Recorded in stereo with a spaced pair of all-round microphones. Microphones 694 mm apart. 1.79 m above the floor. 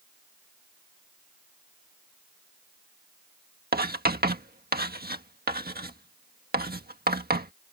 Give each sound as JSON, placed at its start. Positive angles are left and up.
{"t": 3.7, "sound": "writing", "side_deg": -15}